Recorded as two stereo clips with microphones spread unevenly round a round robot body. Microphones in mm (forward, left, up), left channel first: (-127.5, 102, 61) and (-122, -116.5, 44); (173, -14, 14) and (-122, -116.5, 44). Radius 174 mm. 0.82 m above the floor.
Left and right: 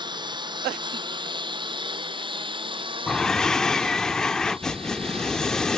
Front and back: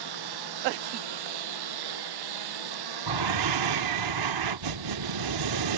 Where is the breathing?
175° left.